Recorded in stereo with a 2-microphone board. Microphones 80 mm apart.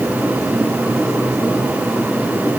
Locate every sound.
Only background noise.